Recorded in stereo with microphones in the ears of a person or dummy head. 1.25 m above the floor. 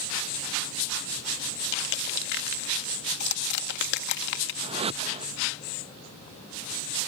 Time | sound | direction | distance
1.7 | crushing | 60° left (ahead or behind) | ?
4.6 | a whoosh | 30° right (ahead or behind) | ?